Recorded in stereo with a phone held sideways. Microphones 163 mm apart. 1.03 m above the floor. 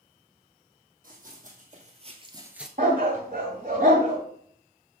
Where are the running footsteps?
55° right (ahead or behind), 3 m; by 2.7 s centre (ahead or behind), 1.0 m.